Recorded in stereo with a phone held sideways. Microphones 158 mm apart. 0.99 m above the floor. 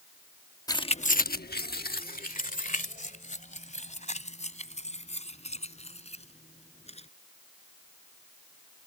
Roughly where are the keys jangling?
Left.